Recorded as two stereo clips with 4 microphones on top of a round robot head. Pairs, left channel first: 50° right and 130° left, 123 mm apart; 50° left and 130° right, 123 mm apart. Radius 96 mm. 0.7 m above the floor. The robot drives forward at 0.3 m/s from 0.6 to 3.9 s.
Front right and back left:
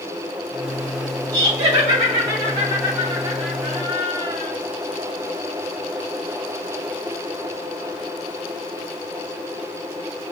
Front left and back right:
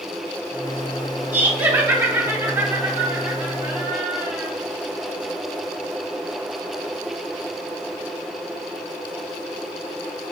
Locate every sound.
1.3 s laughter: 175° left, 1.4 m; by 4.5 s straight behind, 2 m